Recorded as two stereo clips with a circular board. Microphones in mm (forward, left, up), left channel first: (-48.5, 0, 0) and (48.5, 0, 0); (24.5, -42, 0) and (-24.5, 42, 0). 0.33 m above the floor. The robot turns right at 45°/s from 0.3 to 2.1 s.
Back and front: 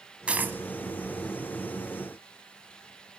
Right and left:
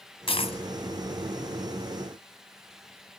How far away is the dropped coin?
About 0.9 m.